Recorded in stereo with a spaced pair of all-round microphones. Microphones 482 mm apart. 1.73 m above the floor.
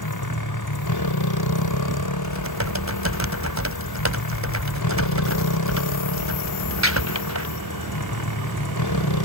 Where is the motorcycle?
50° left (ahead or behind).